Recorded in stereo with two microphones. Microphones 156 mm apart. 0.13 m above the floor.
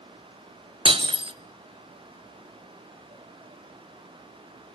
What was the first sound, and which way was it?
Breaking glass, 35° right (ahead or behind).